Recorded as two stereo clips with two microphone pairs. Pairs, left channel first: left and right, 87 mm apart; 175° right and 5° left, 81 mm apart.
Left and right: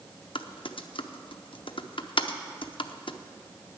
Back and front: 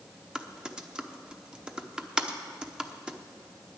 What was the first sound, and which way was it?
Typing on a keyboard, 80° left.